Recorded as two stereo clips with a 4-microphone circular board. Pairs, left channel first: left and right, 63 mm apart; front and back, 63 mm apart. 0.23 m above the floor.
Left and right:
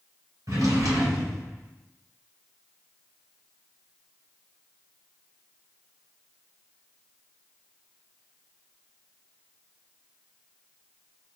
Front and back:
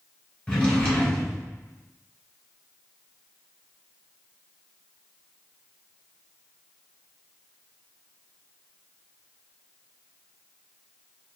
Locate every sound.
0.5 s a drawer: 75° right, 1.7 m